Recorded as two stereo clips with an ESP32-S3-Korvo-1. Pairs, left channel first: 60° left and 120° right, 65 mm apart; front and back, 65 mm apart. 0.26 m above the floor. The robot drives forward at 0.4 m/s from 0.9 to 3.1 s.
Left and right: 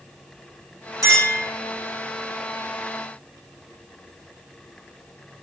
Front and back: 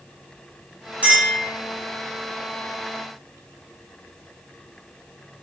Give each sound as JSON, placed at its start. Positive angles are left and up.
{"t": 1.0, "sound": "a clink", "azimuth_deg": -110, "distance_m": 2.0}